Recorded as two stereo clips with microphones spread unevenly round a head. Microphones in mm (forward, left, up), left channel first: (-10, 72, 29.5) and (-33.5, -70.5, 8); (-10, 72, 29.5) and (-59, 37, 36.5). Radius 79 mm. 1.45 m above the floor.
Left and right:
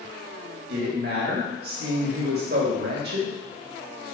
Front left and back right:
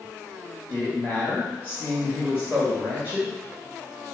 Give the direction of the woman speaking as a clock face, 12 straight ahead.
2 o'clock.